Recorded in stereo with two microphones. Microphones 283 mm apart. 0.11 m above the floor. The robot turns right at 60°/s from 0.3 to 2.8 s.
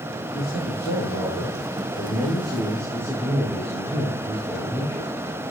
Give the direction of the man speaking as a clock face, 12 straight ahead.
11 o'clock.